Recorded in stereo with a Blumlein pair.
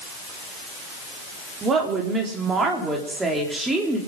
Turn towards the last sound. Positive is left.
turn(degrees=-5)